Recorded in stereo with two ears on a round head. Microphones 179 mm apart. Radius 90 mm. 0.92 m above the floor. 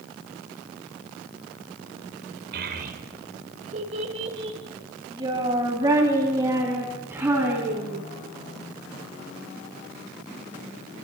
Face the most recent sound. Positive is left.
turn(degrees=-10)  # may be behind; listen again after turning